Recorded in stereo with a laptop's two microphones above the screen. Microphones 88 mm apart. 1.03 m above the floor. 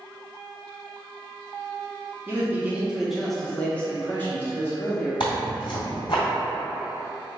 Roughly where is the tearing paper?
Left.